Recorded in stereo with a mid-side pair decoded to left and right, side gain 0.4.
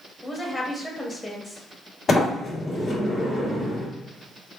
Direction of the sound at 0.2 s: 25° left.